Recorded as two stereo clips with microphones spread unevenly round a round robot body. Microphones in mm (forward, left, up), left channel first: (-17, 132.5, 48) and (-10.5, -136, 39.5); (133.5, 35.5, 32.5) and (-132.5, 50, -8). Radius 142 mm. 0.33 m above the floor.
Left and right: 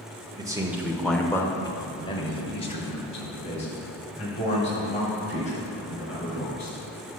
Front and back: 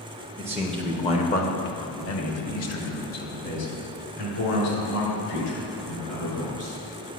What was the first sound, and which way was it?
A man speaking, 145° right.